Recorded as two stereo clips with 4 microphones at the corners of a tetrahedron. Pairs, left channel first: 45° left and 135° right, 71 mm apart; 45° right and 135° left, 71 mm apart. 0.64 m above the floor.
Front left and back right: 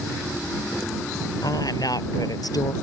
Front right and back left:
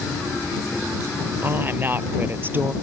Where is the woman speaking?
75° left.